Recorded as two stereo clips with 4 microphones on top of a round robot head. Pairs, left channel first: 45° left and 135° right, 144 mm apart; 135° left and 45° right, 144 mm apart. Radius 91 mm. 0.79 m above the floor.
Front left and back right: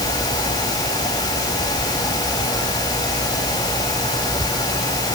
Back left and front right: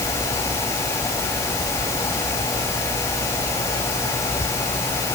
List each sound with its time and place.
Only background noise.